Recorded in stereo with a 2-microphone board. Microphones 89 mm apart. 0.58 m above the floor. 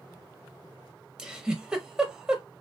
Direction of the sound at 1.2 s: 10° right (ahead or behind).